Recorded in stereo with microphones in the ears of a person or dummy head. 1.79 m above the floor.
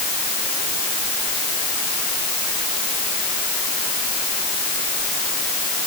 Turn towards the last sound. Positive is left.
No sound to turn to.